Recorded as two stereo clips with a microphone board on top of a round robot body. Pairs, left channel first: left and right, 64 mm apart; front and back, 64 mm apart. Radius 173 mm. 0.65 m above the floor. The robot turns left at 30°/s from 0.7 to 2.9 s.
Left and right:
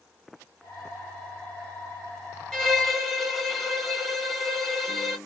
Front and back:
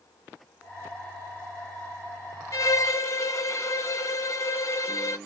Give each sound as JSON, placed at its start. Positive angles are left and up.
{"t": 2.5, "sound": "a violin", "azimuth_deg": 10, "distance_m": 1.4}